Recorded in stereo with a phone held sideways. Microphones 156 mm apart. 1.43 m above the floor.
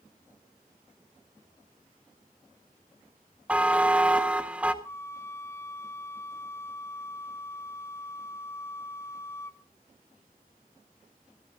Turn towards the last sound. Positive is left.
turn(degrees=15)  # may be behind; listen again after turning